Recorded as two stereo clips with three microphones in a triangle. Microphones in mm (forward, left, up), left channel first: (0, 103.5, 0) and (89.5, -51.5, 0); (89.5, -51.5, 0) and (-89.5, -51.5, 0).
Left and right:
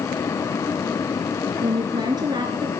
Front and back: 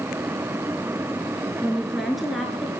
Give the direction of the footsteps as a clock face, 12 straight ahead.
I don't hear footsteps.